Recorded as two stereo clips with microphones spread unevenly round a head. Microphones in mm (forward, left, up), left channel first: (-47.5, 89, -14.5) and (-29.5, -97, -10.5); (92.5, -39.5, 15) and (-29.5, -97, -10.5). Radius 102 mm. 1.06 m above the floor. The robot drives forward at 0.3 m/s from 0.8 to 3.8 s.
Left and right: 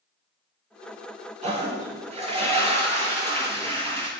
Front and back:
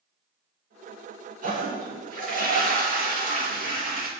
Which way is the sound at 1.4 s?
135° right.